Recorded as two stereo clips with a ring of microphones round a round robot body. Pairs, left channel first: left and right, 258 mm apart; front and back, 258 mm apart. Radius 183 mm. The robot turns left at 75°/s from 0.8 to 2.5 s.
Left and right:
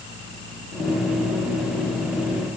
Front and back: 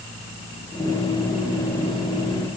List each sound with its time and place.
Only background noise.